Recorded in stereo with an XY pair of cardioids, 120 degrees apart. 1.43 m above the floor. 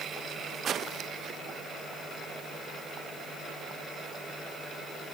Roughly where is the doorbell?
No doorbell in this recording.